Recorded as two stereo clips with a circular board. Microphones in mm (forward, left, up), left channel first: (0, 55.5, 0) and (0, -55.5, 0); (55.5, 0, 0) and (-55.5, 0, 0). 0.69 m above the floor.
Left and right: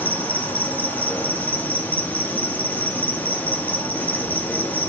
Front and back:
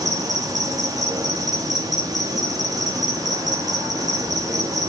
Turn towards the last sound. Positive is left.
turn(degrees=155)